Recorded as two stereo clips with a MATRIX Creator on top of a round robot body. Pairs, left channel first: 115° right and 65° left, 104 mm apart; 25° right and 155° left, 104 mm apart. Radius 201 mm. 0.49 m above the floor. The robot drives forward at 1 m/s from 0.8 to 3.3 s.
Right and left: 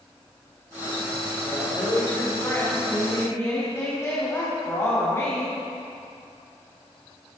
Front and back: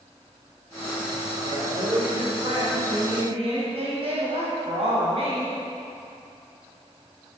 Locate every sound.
1.4 s a woman speaking: 175° right, 3.5 m